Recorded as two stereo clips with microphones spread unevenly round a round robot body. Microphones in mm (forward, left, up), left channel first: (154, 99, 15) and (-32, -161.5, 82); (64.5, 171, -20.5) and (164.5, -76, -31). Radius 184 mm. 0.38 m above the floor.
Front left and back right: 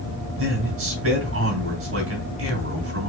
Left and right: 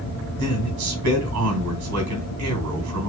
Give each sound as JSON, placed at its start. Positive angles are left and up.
{"t": 0.4, "sound": "a man speaking", "azimuth_deg": -75, "distance_m": 3.0}